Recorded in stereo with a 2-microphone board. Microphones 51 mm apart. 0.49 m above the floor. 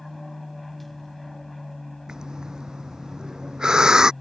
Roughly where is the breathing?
Centre.